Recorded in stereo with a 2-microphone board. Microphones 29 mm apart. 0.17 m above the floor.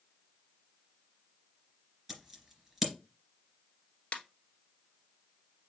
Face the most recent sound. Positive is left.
turn(degrees=55)  # may be behind; listen again after turning